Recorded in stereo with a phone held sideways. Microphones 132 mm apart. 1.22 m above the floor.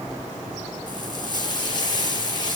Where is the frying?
35° left (ahead or behind), 3.5 m.